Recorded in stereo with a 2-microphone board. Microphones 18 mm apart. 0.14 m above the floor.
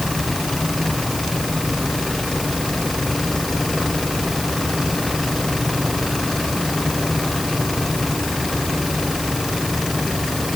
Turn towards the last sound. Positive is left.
No sound to turn to.